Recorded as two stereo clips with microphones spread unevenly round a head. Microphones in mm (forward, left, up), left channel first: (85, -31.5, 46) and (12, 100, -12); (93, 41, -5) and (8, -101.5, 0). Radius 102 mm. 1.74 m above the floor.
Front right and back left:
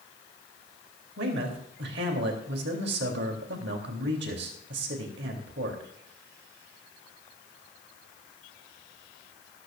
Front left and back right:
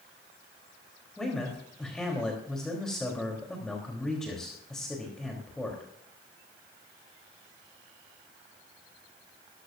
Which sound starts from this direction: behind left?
A man speaking, at 1.2 s.